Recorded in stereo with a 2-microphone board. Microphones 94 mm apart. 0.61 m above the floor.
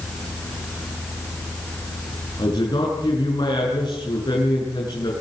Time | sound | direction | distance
2.4 | a man speaking | 55° left (ahead or behind) | 7.5 m